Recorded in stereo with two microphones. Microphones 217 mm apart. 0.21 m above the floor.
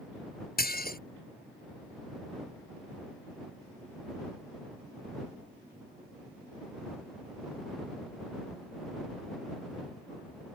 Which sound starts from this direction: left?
Dishes clattering, at 0.6 s.